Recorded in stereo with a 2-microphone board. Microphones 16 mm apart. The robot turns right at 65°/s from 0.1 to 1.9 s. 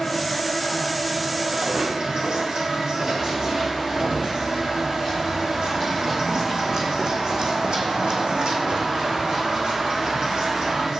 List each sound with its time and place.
0.0 s an insect: 115° left, 1.9 m; by 11.0 s 125° right, 1.9 m
1.5 s footsteps: 65° right (ahead or behind), 1.7 m; by 4.2 s 60° right (ahead or behind), 5 m
3.2 s running footsteps: 15° right (ahead or behind), 3.5 m; by 10.9 s 45° right (ahead or behind), 2.5 m